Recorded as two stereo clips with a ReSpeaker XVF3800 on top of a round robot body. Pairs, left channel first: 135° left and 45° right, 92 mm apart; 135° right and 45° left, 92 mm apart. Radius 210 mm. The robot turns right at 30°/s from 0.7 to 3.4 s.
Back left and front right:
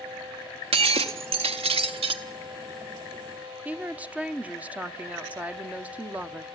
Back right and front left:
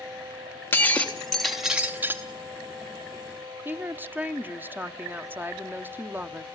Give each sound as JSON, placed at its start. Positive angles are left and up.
{"t": 0.7, "sound": "breaking glass", "azimuth_deg": -65, "distance_m": 0.8}
{"t": 3.6, "sound": "a woman speaking", "azimuth_deg": 10, "distance_m": 0.9}